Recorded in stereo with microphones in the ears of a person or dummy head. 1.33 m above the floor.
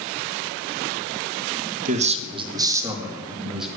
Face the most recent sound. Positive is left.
turn(degrees=-5)  # may be behind; listen again after turning